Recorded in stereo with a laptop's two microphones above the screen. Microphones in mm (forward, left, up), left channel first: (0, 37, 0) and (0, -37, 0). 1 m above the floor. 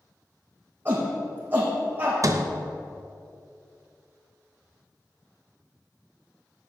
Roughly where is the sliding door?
Right.